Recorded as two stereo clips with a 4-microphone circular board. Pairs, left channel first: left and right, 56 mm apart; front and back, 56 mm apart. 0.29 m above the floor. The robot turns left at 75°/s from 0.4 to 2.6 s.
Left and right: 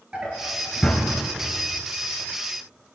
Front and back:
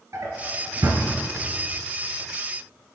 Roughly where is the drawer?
Behind.